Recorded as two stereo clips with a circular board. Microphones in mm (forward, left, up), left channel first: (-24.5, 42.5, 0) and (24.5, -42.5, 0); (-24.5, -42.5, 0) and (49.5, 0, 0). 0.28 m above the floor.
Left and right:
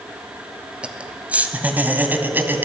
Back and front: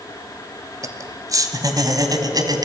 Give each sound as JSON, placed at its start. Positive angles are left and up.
{"t": 0.8, "sound": "laughter", "azimuth_deg": 15, "distance_m": 1.8}